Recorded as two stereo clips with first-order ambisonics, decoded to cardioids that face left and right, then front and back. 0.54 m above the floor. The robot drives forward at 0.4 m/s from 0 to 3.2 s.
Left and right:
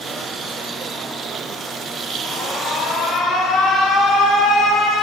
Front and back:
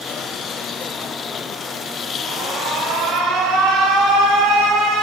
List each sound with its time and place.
2.2 s an alarm: 150° left, 3.5 m